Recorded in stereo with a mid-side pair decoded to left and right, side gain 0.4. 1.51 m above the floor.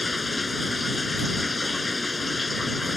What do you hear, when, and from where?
0.0 s running water: 25° left